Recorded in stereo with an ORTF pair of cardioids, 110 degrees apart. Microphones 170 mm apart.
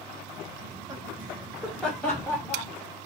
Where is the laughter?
30° right, 1.2 m; by 2.7 s 15° left, 2.5 m.